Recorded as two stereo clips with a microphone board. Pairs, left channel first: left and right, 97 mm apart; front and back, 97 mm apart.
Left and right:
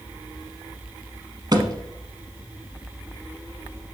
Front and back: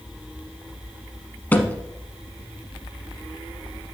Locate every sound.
1.5 s a thud: 70° right, 0.9 m